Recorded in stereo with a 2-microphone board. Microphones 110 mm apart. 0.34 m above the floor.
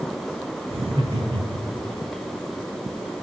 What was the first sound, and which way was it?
Laughter, 55° right (ahead or behind).